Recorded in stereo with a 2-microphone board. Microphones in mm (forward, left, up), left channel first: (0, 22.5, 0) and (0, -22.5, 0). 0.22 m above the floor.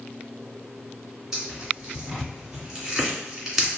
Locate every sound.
1.3 s tearing paper: 10° right (ahead or behind), 1.7 m